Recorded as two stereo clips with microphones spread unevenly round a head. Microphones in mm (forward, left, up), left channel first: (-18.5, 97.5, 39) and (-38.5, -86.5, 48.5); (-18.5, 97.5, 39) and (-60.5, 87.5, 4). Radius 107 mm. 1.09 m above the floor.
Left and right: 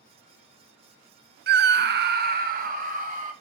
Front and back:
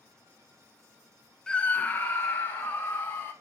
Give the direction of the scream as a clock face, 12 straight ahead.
3 o'clock.